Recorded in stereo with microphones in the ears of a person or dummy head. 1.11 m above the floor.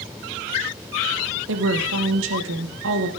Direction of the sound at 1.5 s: 70° right (ahead or behind).